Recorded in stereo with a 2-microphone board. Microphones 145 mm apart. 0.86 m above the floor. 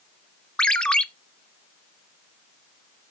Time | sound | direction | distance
0.6 | a ringtone | 5° left (ahead or behind) | 0.8 m